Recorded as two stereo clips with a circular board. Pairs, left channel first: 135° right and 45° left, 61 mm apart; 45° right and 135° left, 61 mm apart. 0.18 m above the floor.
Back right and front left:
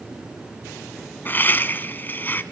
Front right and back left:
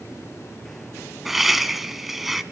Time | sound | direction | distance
1.2 | laughter | 140° right | 1.7 m